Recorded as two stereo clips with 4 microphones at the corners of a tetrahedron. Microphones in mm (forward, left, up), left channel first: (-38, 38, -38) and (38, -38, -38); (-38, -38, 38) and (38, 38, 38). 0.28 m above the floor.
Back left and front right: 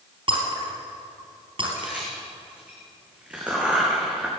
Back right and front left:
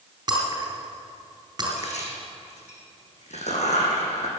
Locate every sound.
0.3 s breaking glass: 5° right, 3.5 m
1.8 s a crack: 125° right, 3 m